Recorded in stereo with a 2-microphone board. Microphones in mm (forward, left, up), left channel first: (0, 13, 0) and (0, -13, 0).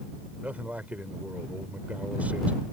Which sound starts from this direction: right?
A man speaking, at 0.4 s.